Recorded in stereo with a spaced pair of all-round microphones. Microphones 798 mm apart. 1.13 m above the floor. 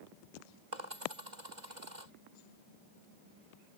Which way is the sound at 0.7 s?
60° right (ahead or behind).